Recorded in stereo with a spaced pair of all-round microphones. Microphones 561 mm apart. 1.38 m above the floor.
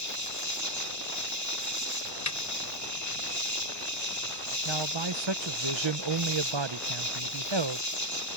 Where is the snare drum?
30° left (ahead or behind).